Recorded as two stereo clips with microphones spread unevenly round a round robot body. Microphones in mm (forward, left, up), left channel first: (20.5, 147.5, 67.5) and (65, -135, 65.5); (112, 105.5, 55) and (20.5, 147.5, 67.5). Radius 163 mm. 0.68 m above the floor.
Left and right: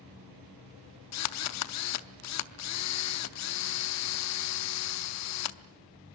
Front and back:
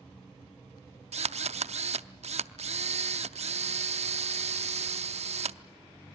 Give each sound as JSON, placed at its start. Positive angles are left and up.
{"t": 1.1, "sound": "a drill", "azimuth_deg": 140, "distance_m": 0.7}